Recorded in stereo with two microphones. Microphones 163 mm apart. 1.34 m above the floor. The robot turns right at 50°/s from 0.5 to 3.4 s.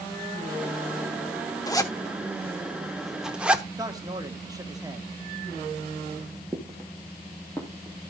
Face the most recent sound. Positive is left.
turn(degrees=20)  # may be behind; listen again after turning